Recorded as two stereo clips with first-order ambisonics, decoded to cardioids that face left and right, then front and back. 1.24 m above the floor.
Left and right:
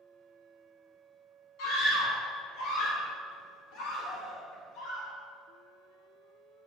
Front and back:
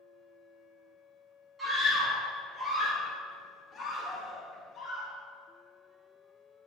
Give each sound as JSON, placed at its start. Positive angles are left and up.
{"t": 1.6, "sound": "a scream", "azimuth_deg": 105, "distance_m": 3.0}